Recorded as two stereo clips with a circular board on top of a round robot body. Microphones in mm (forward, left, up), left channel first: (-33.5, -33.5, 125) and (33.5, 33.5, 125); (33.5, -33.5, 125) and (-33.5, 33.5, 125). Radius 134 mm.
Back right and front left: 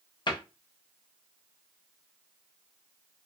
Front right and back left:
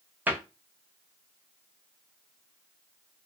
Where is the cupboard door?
160° right, 0.8 m.